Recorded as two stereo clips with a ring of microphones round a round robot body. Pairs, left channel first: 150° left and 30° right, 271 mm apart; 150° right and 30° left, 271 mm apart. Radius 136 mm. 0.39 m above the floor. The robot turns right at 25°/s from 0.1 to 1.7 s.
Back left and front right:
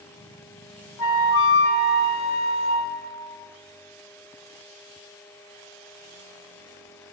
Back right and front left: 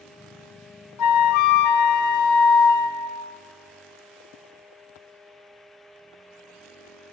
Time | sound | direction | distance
1.0 | a flute | 175° right | 0.9 m